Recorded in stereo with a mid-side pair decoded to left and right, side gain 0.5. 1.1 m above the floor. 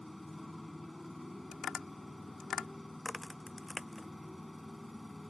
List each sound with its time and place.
0.0 s a motorcycle: 5° left
1.5 s tapping: 55° left
3.0 s a crack: 15° left